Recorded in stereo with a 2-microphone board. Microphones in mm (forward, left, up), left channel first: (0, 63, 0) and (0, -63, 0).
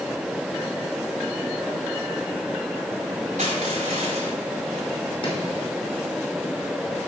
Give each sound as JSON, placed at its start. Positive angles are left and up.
{"t": 3.4, "sound": "crushing", "side_deg": -75, "distance_m": 5.5}
{"t": 5.2, "sound": "chopping", "side_deg": 45, "distance_m": 5.0}